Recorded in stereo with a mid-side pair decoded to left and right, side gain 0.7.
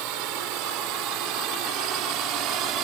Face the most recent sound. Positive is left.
turn(degrees=-60)